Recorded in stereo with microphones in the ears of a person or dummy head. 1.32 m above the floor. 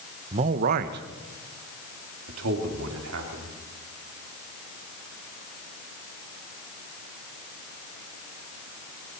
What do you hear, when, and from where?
0.3 s a man speaking: 30° right (ahead or behind), 0.8 m; by 3.6 s 85° right, 3.5 m